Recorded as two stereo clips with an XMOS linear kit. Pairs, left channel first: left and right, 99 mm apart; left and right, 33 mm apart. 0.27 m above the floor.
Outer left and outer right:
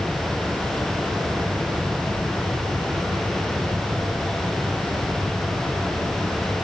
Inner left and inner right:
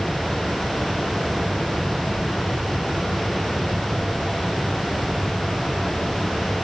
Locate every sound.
Only background noise.